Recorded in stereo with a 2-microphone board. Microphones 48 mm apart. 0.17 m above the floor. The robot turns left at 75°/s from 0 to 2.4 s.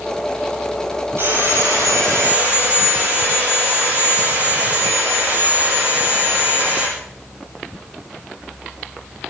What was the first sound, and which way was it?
Sawing, 60° right.